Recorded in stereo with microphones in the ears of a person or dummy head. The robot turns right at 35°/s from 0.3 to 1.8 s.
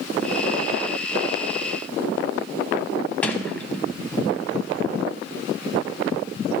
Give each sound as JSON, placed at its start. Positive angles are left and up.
{"t": 3.2, "sound": "a sliding door", "side_deg": 15, "distance_m": 0.7}